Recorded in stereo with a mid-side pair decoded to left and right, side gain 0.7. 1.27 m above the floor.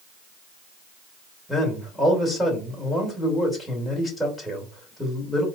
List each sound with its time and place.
1.5 s a man speaking: 5° left, 3 m